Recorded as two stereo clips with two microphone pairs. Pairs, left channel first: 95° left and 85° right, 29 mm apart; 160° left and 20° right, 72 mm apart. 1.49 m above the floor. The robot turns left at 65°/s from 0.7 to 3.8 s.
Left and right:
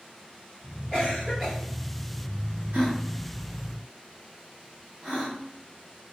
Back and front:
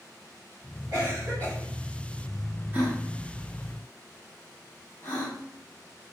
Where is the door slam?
No door slam in this recording.